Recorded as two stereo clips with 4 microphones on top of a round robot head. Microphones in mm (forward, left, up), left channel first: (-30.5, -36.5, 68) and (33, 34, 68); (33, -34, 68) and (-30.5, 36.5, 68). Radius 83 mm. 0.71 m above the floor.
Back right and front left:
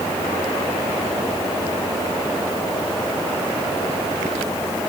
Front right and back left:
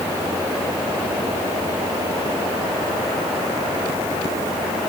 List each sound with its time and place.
Only background noise.